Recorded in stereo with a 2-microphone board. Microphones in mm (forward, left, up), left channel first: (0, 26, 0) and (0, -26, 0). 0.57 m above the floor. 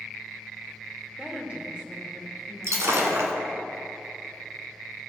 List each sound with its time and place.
1.2 s a woman speaking: 25° right (ahead or behind), 2 m
2.6 s breaking glass: 75° right (ahead or behind), 1.4 m